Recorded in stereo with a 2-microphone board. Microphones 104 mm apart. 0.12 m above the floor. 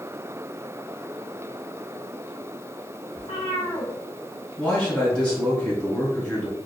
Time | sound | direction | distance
3.2 | a cat meowing | 55° left (ahead or behind) | 1.6 m
4.6 | a man speaking | 15° left (ahead or behind) | 1.3 m